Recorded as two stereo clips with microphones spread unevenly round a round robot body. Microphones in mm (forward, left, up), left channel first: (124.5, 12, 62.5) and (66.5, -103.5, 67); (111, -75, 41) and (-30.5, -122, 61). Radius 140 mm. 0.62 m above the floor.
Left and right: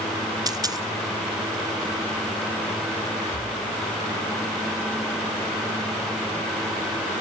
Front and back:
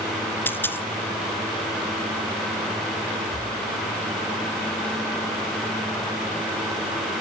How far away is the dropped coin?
About 1.3 m.